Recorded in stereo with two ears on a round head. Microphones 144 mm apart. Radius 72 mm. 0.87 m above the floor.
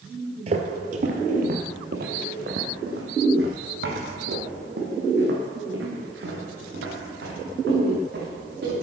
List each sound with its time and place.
0.5 s footsteps: 40° right (ahead or behind), 1.2 m; by 8.7 s 70° right (ahead or behind), 5 m